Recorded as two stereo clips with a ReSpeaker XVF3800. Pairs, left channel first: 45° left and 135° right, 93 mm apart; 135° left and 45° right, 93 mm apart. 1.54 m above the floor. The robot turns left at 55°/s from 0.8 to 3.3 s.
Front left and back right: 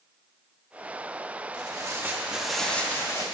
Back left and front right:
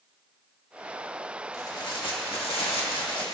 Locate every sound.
1.5 s tearing paper: 170° right, 1.9 m; by 3.2 s 95° left, 1.9 m